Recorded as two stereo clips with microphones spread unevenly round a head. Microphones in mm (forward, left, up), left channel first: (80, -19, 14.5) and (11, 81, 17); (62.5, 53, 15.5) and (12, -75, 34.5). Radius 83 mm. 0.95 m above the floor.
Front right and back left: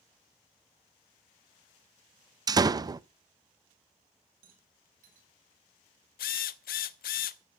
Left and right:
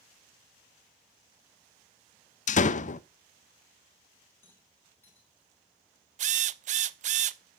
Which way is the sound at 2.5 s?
70° left.